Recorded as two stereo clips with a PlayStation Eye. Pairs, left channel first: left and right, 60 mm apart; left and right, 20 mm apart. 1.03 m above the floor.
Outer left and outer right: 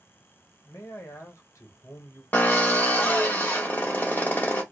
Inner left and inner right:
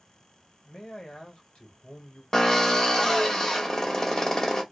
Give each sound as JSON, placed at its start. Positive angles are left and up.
{"t": 0.7, "sound": "a man speaking", "side_deg": 60, "distance_m": 1.0}
{"t": 2.3, "sound": "a drill", "side_deg": 35, "distance_m": 0.7}